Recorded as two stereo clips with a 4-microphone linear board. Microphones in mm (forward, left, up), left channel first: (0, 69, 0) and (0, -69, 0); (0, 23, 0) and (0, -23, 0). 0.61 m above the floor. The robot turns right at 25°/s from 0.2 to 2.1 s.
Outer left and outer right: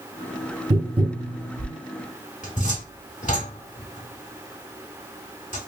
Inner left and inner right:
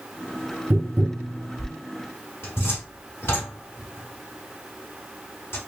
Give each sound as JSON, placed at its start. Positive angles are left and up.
{"t": 0.7, "sound": "tapping", "side_deg": -40, "distance_m": 0.7}
{"t": 2.4, "sound": "a cupboard door", "side_deg": 60, "distance_m": 1.5}